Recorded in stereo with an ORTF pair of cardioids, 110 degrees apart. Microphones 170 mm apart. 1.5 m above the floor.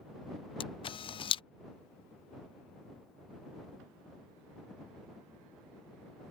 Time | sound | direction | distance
0.6 | a camera shutter | 35° left | ?